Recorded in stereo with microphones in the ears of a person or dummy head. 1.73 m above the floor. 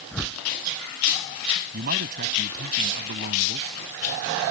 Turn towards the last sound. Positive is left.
turn(degrees=-50)  # may be behind; listen again after turning